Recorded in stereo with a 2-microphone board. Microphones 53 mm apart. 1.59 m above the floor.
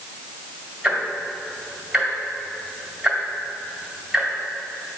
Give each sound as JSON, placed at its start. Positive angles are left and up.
{"t": 0.8, "sound": "ticking", "side_deg": -15, "distance_m": 1.9}